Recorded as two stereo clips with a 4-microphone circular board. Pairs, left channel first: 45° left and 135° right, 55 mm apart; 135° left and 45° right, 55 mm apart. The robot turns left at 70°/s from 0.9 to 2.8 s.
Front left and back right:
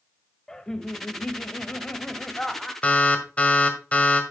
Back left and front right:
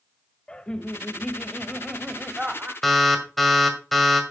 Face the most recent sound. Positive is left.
turn(degrees=50)